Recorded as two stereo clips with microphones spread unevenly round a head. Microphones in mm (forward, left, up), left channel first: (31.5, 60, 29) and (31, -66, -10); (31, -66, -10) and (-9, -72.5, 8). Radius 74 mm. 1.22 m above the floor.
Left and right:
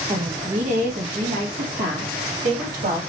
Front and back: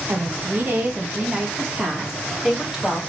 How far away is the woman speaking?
About 1.2 m.